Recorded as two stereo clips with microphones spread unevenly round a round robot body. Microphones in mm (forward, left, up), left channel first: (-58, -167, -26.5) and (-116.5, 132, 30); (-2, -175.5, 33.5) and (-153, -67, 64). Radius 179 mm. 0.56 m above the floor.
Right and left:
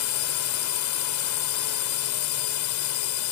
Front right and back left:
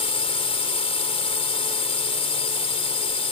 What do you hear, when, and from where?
0.0 s a drone: 85° right